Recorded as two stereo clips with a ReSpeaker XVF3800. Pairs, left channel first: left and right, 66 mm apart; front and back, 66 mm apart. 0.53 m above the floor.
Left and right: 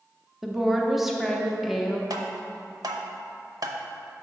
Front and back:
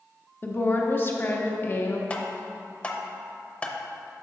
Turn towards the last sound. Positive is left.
turn(degrees=-70)